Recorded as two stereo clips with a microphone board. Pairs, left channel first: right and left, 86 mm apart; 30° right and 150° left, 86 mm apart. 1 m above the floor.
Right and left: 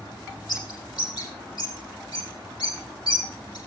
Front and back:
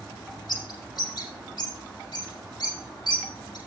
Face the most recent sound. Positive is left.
turn(degrees=-65)